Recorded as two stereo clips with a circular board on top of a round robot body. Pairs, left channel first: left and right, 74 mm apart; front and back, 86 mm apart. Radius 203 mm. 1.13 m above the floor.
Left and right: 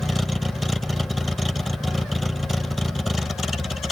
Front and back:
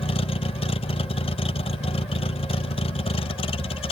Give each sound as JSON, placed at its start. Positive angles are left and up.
{"t": 0.0, "sound": "a vehicle", "azimuth_deg": 0}